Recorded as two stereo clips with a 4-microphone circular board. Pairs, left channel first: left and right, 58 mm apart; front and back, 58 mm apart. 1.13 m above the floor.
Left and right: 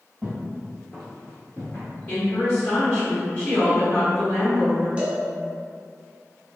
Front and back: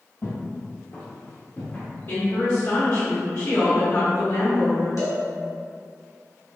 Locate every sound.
0.2 s footsteps: 20° right, 1.5 m; by 1.9 s 70° left, 1.4 m
2.1 s a woman speaking: 35° left, 1.1 m
5.0 s a cowbell: 20° right, 0.9 m